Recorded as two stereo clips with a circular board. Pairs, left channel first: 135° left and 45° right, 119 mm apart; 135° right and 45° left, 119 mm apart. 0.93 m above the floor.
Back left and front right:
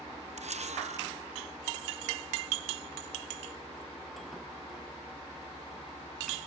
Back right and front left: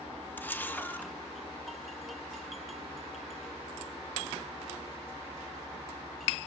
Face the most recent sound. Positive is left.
turn(degrees=-60)